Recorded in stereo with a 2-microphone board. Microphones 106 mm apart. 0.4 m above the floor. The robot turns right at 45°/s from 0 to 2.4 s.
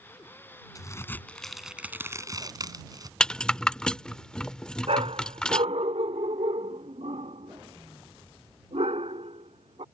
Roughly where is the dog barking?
Right.